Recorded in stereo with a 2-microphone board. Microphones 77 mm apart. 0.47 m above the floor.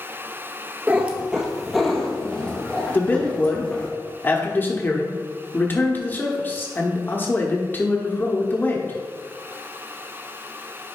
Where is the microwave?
I don't hear a microwave.